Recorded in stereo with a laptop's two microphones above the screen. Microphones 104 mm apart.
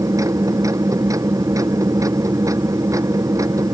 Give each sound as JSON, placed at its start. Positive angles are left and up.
{"t": 0.0, "sound": "a machine running", "side_deg": -30}